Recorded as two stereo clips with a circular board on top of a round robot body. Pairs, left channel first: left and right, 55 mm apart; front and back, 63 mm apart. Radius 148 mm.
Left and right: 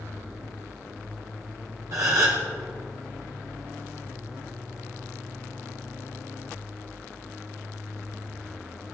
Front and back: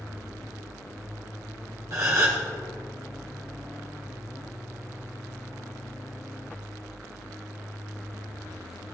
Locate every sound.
1.9 s a gasp: 130° right, 1.0 m